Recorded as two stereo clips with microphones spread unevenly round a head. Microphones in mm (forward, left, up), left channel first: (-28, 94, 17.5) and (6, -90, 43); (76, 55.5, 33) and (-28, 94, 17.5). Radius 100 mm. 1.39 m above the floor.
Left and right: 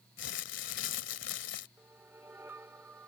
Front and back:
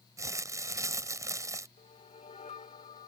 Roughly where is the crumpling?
Left.